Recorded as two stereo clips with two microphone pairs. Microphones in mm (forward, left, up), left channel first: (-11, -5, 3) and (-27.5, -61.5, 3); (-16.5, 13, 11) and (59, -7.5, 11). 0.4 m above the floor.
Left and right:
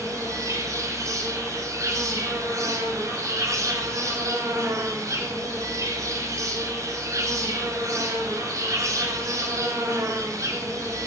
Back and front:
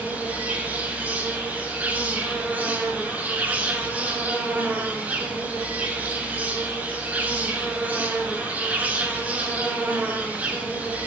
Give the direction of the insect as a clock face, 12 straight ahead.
3 o'clock.